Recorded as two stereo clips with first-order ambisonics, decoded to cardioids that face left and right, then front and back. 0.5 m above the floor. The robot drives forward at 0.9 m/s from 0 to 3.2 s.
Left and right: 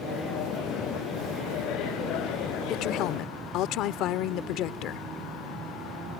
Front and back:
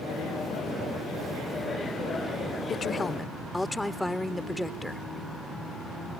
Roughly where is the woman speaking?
Ahead left.